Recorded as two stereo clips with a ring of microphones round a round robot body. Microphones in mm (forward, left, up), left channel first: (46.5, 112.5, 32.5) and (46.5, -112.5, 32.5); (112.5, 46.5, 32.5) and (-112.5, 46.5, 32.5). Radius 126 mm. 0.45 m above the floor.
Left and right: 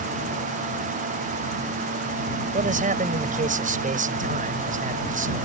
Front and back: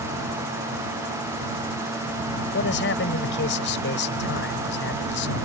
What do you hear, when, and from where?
2.5 s a man speaking: 40° right